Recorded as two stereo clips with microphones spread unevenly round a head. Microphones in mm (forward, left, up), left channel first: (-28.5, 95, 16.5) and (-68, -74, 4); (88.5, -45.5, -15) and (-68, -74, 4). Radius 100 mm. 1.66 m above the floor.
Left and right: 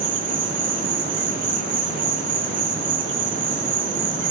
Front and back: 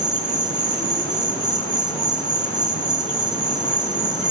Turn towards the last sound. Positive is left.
turn(degrees=-65)